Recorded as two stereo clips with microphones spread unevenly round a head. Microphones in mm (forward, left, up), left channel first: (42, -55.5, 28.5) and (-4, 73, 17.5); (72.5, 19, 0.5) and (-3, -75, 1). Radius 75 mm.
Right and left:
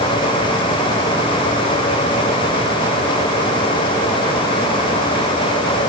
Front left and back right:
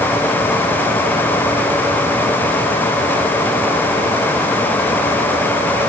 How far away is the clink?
I don't hear a clink.